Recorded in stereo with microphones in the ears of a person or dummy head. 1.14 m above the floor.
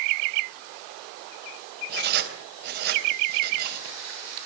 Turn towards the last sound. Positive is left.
turn(degrees=-60)  # may be behind; listen again after turning